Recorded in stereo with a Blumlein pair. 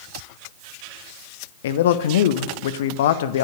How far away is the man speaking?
About 1.0 m.